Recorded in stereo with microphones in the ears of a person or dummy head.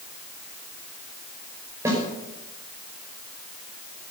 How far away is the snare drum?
About 5 m.